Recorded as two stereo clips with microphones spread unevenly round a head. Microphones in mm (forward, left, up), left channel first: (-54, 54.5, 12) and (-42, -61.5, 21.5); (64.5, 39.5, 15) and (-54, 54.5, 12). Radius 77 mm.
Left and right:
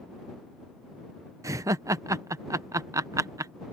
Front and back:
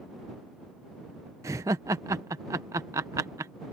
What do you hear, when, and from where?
1.4 s laughter: 125° right